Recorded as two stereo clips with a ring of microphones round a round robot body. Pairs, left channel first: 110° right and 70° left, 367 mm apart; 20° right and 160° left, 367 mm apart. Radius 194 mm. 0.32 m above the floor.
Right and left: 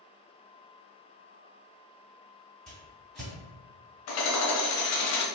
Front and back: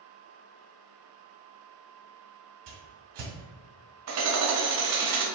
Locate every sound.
2.7 s a whoosh: 160° left, 2.0 m
4.1 s hammering: 160° right, 0.9 m